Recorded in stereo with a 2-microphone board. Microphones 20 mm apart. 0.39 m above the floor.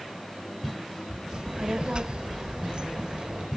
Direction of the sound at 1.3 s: 50° right (ahead or behind).